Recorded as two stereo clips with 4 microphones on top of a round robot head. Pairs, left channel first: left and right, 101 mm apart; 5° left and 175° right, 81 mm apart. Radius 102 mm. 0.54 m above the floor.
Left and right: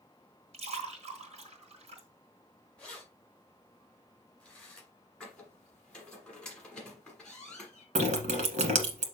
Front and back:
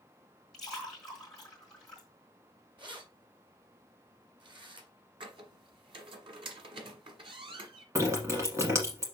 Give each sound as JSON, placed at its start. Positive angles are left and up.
{"t": 0.5, "sound": "a splash", "azimuth_deg": -80, "distance_m": 2.0}
{"t": 2.8, "sound": "keys jangling", "azimuth_deg": 170, "distance_m": 2.5}
{"t": 5.2, "sound": "a squeak", "azimuth_deg": 170, "distance_m": 1.4}
{"t": 8.0, "sound": "dripping", "azimuth_deg": -110, "distance_m": 1.2}